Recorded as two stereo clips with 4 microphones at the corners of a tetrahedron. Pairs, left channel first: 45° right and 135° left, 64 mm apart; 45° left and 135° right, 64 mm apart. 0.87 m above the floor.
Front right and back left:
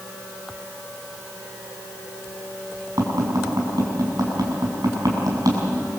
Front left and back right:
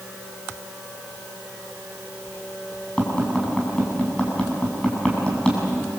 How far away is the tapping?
About 7 m.